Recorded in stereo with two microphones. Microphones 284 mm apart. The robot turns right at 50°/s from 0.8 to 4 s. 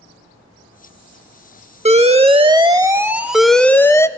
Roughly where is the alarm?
Right.